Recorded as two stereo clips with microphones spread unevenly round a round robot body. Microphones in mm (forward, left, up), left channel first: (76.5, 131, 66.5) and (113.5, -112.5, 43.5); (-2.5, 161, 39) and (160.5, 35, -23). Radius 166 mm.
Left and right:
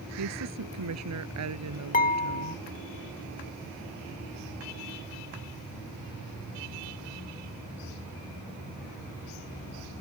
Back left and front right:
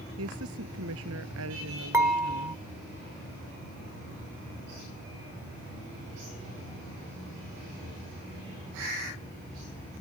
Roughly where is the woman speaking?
Right.